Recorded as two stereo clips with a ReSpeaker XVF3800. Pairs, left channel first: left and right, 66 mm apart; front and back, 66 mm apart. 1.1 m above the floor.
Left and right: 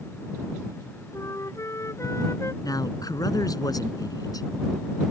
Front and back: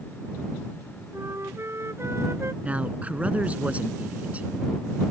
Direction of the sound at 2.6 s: 110° left.